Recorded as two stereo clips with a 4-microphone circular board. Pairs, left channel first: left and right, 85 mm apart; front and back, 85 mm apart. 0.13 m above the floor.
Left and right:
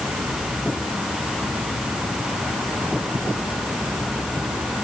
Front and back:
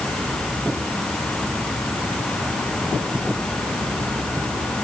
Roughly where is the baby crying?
No baby crying in this recording.